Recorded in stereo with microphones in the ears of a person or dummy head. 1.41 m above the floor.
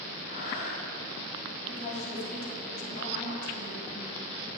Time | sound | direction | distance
0.3 | breathing | 65° left (ahead or behind) | 5 m
1.7 | a woman speaking | 45° left (ahead or behind) | 3.5 m